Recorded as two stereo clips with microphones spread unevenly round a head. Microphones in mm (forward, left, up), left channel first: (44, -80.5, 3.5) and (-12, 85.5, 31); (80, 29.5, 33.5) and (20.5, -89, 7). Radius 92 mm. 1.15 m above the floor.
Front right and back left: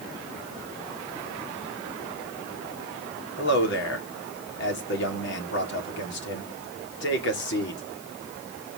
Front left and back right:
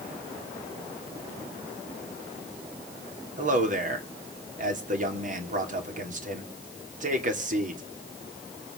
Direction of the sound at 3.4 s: 95° right.